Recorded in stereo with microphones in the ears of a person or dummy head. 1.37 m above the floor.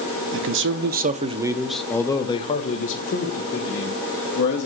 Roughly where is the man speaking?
Right.